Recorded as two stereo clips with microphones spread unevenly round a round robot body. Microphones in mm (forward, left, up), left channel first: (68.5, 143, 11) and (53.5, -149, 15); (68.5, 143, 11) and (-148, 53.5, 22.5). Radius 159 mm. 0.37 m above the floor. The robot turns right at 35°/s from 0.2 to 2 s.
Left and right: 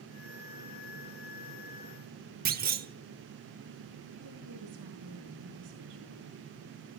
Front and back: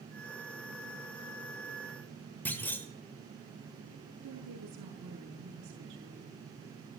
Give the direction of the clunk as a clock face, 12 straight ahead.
2 o'clock.